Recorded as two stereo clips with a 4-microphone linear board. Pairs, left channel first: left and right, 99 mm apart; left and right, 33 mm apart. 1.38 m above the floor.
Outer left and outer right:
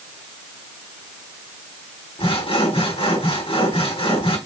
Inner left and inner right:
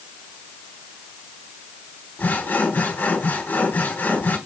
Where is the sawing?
70° left (ahead or behind), 3 m.